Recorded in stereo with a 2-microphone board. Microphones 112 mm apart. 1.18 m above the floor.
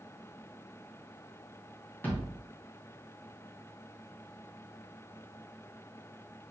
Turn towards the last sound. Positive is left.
turn(degrees=20)  # may be behind; listen again after turning